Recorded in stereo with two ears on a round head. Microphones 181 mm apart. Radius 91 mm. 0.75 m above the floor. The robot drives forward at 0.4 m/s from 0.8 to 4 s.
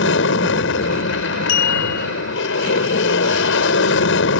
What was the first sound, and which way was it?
An aircraft, 65° left (ahead or behind).